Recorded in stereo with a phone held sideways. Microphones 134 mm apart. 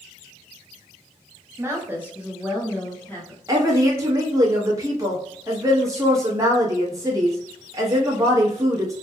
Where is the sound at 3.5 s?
20° right (ahead or behind), 1.2 m.